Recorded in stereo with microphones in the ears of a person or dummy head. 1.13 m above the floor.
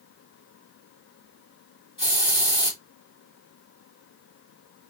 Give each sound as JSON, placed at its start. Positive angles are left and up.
{"t": 2.0, "sound": "a hiss", "side_deg": 25, "distance_m": 1.9}